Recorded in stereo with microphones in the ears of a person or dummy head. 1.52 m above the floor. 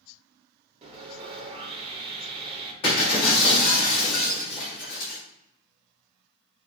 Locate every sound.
0.8 s sawing: 35° right (ahead or behind), 1.0 m
2.8 s breaking glass: 30° left (ahead or behind), 1.7 m